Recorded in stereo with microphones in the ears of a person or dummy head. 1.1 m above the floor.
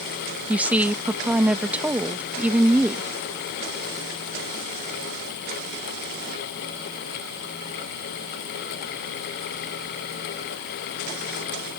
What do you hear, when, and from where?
0.5 s a woman speaking: 10° right (ahead or behind)